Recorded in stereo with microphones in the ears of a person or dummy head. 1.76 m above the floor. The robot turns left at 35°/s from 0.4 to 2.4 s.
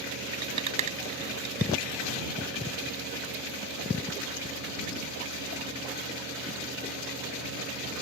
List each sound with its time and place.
0.3 s a rattle: 25° right (ahead or behind); by 1.7 s 65° right (ahead or behind)